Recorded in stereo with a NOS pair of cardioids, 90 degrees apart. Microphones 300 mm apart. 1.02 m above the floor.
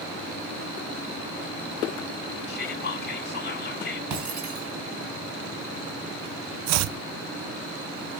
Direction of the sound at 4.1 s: 70° right.